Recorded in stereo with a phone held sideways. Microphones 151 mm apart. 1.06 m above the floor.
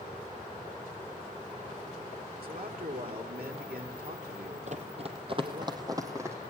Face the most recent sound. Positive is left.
turn(degrees=-15)  # may be behind; listen again after turning